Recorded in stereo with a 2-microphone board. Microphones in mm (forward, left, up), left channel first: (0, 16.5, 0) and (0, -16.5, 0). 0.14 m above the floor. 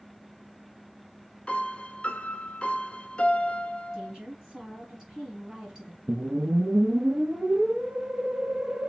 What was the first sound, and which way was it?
A piano, 35° left (ahead or behind).